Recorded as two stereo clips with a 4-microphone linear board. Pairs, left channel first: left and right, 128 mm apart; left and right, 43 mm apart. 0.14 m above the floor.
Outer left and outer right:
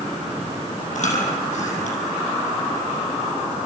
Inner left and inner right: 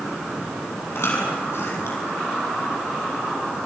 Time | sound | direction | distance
0.9 | chewing | 75° left (ahead or behind) | 5 m